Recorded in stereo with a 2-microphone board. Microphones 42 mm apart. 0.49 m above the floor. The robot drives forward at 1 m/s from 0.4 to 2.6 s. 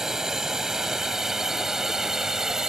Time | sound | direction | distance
0.0 | a drone | 10° right (ahead or behind) | ?